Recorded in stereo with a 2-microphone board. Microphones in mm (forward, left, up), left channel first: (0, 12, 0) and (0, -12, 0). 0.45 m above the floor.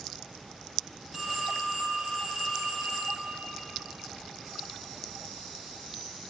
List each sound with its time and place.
1.1 s a phone ringing: 15° right (ahead or behind), 2.5 m